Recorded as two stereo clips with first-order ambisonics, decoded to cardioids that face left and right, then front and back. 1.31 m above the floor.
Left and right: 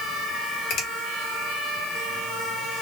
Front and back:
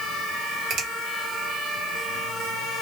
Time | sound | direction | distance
0.7 | a finger snap | 130° left | 1.3 m